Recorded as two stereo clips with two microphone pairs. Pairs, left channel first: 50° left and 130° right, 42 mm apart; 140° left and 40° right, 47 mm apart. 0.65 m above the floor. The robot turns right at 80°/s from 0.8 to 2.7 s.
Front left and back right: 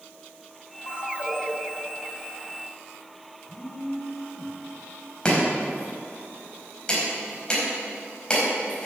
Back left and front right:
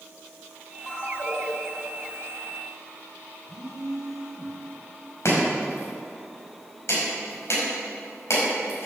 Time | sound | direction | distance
0.9 | a ringtone | 60° left | 3 m
3.5 | a phone buzzing | 40° left | 1.7 m
5.2 | chopping | 120° left | 5 m